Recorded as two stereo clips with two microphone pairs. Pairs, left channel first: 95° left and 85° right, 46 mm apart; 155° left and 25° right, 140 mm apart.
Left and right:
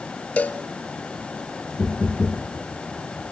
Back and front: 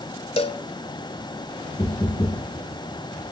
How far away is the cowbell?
About 0.5 m.